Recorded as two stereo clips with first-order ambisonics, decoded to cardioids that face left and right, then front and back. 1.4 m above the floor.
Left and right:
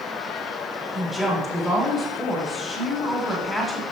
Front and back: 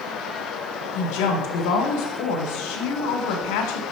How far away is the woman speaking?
About 1.6 m.